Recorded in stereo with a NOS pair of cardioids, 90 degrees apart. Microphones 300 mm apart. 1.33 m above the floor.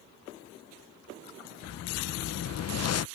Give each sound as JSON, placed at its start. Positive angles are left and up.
{"t": 1.6, "sound": "a whoosh", "azimuth_deg": 50}